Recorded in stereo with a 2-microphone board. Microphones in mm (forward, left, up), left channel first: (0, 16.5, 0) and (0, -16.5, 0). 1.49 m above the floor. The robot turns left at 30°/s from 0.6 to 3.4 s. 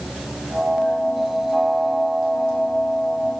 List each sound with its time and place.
Only background noise.